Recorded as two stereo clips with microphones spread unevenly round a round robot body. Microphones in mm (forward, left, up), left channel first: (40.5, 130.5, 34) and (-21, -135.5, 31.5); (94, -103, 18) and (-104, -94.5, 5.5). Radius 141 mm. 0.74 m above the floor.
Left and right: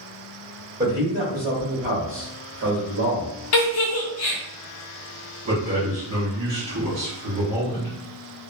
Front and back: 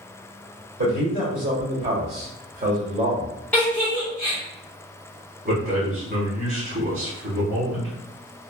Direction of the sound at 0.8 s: Straight behind.